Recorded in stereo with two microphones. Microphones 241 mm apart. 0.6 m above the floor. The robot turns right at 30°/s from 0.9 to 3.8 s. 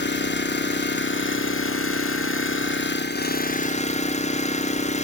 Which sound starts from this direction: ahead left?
An engine running, at 0.0 s.